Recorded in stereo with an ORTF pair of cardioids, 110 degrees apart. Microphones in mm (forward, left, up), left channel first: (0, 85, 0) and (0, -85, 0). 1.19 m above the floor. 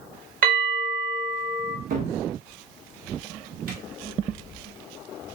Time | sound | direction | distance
0.4 | a bell | 60° right | 1.2 m
1.9 | a cupboard door | 60° right | 0.7 m